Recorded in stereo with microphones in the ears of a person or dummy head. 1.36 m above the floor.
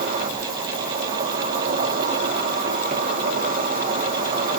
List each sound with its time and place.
0.0 s an insect: 40° right (ahead or behind), 0.8 m